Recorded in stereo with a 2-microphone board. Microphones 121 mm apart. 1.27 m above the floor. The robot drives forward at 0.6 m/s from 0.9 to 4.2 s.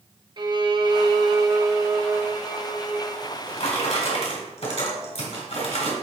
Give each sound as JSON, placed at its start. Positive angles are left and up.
{"t": 0.4, "sound": "a violin", "side_deg": -40, "distance_m": 0.7}
{"t": 3.2, "sound": "a drawer", "side_deg": 65, "distance_m": 2.5}